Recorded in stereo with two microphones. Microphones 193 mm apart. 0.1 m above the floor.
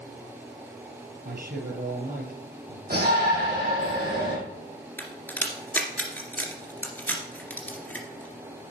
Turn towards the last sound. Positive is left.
turn(degrees=10)  # may be behind; listen again after turning